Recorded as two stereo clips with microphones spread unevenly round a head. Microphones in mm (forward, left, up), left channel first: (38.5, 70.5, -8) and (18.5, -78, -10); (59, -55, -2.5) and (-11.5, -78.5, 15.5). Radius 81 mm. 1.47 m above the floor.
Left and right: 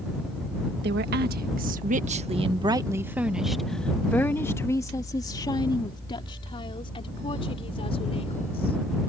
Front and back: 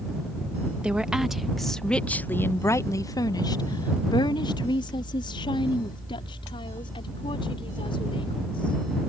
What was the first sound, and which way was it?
A woman speaking, 90° right.